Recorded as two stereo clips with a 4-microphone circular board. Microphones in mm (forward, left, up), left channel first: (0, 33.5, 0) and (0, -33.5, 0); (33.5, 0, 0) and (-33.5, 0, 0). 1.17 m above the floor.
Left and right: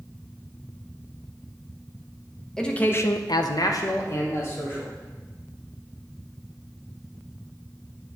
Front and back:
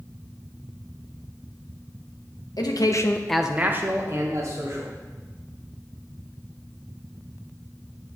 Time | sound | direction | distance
2.6 | a man speaking | 10° left | 0.9 m